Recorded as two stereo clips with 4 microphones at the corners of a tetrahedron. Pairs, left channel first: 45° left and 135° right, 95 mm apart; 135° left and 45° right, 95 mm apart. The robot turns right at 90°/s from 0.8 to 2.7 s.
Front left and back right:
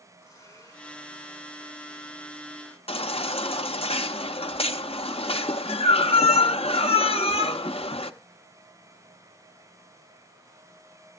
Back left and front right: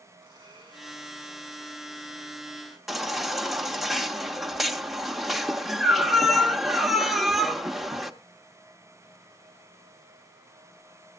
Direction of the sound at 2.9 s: 45° left.